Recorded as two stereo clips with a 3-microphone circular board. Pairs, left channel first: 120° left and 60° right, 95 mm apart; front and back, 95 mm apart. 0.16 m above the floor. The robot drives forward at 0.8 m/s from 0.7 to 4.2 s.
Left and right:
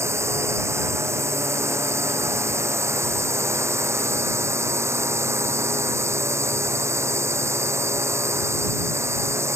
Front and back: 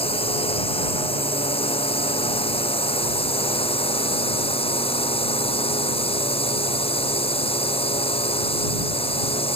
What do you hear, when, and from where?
0.0 s a drone: straight ahead